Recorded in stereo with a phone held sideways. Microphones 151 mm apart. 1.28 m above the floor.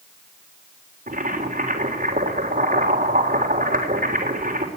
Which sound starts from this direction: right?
Boiling, at 1.1 s.